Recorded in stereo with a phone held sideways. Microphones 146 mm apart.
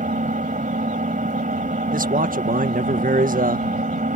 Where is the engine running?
65° right (ahead or behind).